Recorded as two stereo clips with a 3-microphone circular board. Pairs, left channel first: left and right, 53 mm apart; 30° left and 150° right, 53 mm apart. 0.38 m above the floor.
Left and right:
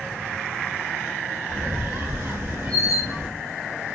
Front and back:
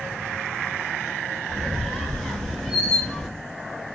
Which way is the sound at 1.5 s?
55° right.